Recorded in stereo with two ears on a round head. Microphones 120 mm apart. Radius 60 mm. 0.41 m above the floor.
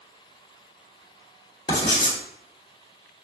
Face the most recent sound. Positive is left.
turn(degrees=30)  # may be behind; listen again after turning